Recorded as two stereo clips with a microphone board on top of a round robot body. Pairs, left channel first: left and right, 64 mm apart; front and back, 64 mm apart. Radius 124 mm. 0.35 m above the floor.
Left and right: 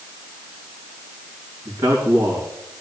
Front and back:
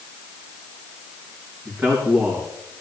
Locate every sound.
1.6 s a man speaking: 125° right, 3.5 m